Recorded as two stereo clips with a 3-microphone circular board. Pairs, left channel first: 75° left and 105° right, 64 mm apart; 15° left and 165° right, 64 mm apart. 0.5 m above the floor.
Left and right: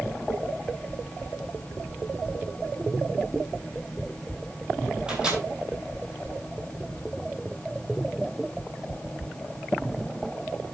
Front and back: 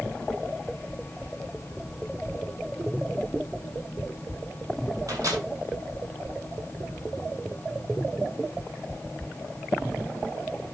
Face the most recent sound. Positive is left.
turn(degrees=180)